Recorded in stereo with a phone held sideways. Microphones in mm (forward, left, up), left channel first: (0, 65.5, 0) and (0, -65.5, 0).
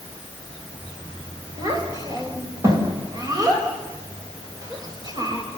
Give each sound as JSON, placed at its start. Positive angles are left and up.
{"t": 1.6, "sound": "a child speaking", "side_deg": -30, "distance_m": 4.0}